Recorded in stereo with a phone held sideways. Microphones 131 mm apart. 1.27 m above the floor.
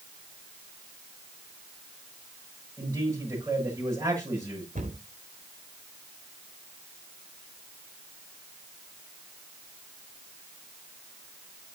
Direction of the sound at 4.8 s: 75° right (ahead or behind).